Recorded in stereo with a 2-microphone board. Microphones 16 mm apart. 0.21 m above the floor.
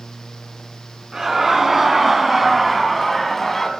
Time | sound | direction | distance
1.1 | laughter | 30° right (ahead or behind) | 2.5 m